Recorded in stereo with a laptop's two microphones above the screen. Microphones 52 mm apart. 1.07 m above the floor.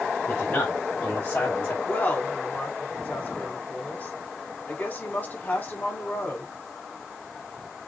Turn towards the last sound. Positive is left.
turn(degrees=35)  # may be behind; listen again after turning